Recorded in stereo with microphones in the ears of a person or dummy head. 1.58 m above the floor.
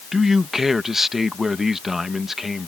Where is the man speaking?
10° right (ahead or behind).